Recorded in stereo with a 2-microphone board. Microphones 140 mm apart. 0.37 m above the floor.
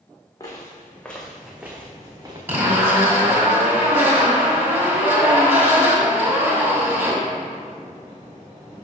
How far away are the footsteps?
About 1.2 m.